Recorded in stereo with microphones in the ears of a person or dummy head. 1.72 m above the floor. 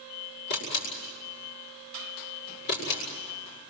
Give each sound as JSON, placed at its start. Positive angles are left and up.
{"t": 0.5, "sound": "a camera shutter", "side_deg": 55, "distance_m": 7.5}